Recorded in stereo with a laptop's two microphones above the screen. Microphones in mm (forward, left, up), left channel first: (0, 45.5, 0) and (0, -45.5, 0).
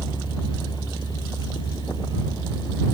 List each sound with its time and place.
0.0 s a fan: 55° left (ahead or behind)